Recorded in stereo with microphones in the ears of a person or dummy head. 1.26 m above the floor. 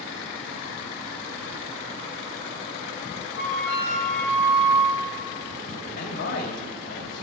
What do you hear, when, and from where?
3.4 s a flute: 70° left (ahead or behind), 1.6 m
6.0 s a man speaking: 65° left (ahead or behind), 2 m